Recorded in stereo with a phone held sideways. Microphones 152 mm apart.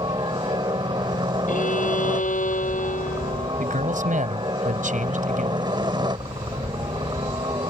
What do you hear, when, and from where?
0.0 s a helicopter: 30° right (ahead or behind)
1.5 s a violin: 55° left (ahead or behind)
3.6 s a man speaking: 60° right (ahead or behind)